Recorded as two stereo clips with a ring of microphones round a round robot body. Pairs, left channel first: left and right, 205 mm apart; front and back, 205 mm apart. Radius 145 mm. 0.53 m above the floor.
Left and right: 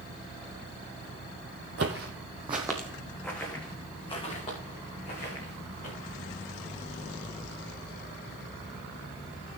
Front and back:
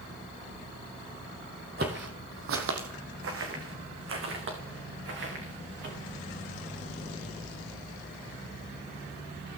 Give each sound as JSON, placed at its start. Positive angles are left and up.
{"t": 1.8, "sound": "footsteps", "azimuth_deg": -130, "distance_m": 1.1}